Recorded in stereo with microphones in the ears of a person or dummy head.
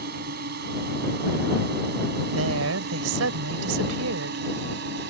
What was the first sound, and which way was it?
A drone, 55° right (ahead or behind).